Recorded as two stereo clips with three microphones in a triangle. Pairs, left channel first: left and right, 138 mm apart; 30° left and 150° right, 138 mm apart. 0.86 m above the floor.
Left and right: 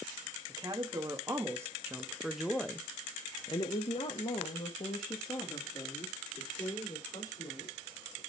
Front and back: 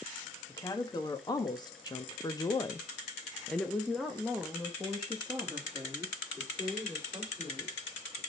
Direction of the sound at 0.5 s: 30° right.